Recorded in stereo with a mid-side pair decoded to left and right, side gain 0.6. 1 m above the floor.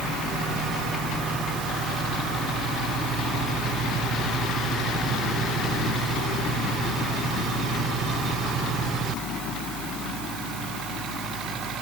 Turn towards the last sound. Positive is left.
No sound to turn to.